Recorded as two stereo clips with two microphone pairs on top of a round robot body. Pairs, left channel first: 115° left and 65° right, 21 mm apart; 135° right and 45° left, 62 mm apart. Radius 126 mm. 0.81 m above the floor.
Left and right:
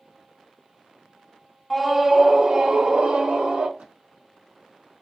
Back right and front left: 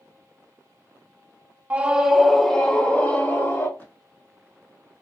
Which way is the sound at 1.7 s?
5° left.